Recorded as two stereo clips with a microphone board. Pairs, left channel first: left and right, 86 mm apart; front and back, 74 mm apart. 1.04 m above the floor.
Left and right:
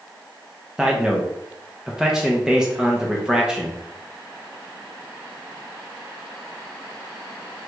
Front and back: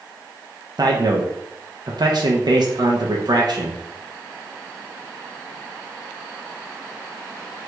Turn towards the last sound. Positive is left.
turn(degrees=-170)